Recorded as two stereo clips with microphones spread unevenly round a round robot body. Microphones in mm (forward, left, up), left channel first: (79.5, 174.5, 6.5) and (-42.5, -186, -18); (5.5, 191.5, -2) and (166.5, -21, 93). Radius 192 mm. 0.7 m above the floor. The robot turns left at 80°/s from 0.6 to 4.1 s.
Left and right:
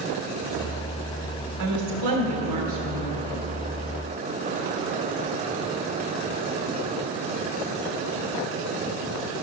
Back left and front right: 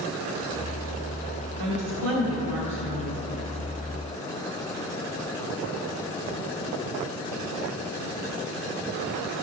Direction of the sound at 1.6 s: 70° right.